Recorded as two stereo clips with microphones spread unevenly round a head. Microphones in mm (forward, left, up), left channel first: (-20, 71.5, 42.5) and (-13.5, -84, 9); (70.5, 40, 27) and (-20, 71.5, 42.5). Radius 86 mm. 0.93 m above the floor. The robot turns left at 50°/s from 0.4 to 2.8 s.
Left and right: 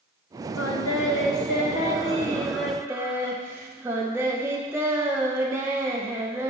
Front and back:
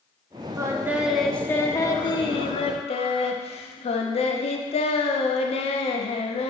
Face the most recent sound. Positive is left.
turn(degrees=-10)